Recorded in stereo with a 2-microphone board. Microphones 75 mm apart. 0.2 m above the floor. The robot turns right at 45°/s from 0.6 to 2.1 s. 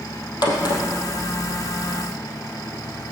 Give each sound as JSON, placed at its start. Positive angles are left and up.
{"t": 0.4, "sound": "a crack", "side_deg": 65, "distance_m": 3.0}